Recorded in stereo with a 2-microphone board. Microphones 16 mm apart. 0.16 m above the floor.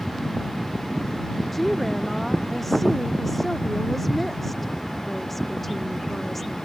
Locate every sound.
1.5 s a woman speaking: 20° left (ahead or behind)